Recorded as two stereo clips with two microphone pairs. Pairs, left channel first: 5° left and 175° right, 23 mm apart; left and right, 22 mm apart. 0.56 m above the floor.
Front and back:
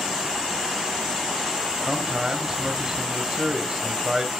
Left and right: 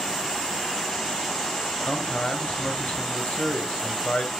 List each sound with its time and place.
1.9 s a man speaking: 115° left, 2.5 m